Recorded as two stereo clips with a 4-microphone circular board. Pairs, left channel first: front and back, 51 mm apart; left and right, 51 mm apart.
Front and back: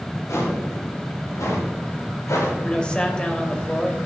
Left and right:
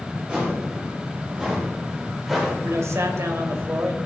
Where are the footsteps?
20° right, 5 m; by 2.5 s 5° right, 6 m.